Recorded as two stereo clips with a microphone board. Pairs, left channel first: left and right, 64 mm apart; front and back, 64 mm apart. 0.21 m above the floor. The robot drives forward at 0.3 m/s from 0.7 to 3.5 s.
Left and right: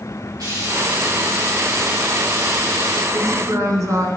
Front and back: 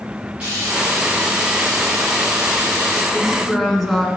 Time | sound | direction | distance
0.4 | frying | 110° right | 4.5 m
3.1 | a woman speaking | 85° right | 1.8 m